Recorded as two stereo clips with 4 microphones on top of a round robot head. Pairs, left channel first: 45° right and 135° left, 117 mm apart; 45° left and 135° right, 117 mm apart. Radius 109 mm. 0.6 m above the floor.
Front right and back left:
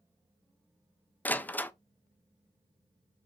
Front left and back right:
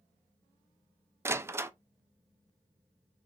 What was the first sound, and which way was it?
A door slam, 100° right.